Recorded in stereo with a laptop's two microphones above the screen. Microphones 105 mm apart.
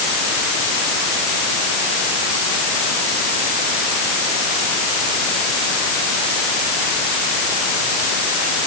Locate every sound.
Only background noise.